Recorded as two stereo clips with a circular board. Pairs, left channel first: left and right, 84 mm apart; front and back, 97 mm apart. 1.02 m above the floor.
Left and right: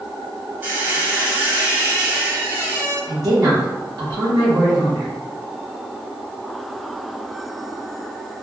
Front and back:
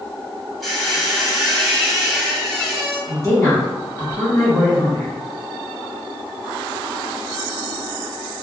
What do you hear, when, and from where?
0.6 s a squeak: 85° right, 0.9 m
3.1 s a woman speaking: 50° right, 1.2 m